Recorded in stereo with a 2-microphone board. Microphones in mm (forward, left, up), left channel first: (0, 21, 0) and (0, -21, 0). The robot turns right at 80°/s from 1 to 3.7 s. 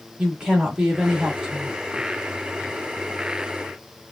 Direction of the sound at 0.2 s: 20° right (ahead or behind).